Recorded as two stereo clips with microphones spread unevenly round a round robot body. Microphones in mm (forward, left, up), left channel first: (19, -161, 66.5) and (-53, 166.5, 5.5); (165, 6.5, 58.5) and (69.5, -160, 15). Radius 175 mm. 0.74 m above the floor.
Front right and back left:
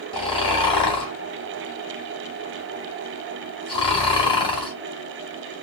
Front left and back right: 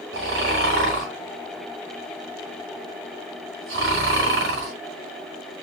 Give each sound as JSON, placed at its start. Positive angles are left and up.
{"t": 0.1, "sound": "snoring", "azimuth_deg": -155, "distance_m": 1.2}